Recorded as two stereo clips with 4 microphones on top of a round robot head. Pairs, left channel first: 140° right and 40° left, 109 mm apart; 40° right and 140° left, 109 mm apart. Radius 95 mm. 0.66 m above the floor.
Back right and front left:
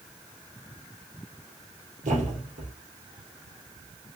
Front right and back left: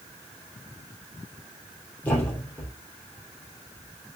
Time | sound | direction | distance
2.0 | a thud | 35° left | 3.5 m